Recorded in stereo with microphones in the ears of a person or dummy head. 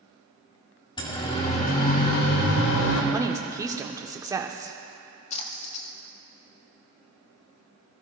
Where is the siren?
25° left (ahead or behind), 2.5 m; by 3.0 s 85° left, 2.5 m.